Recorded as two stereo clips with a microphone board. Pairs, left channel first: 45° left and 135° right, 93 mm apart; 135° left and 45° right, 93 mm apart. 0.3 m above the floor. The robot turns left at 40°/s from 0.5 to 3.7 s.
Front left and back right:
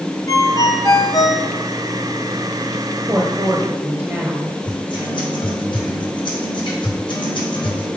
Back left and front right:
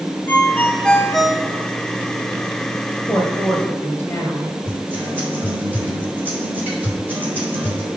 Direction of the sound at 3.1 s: 160° right.